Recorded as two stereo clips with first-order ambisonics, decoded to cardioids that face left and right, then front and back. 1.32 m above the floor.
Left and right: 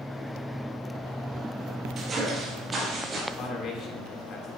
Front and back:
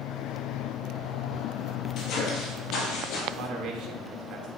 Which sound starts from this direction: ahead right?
Footsteps, at 2.0 s.